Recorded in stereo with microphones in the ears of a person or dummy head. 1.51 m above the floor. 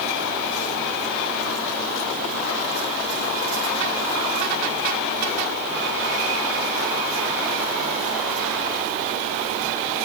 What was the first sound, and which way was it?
Only background noise.